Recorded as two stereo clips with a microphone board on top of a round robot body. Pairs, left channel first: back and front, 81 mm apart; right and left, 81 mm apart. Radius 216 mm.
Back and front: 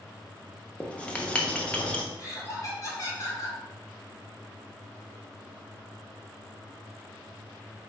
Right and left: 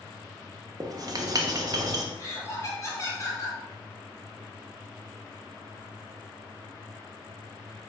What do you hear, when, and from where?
0.8 s writing: 110° left, 1.0 m
2.2 s laughter: 140° right, 2 m